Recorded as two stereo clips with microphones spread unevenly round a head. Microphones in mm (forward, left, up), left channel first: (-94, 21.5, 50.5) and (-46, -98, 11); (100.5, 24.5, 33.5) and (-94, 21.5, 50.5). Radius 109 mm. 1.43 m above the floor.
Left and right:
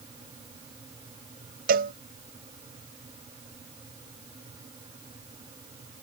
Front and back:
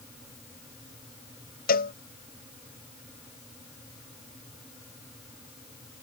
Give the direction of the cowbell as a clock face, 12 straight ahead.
2 o'clock.